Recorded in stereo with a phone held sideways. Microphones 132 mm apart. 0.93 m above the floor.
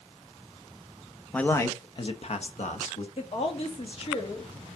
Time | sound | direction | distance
1.3 | a man speaking | 10° left (ahead or behind) | 1.0 m
3.2 | a woman speaking | 50° left (ahead or behind) | 1.7 m